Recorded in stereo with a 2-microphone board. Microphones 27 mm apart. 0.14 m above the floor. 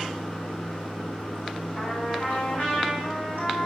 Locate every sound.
0.0 s running water: 80° left, 3.5 m
1.8 s a trumpet: 70° left (ahead or behind), 4 m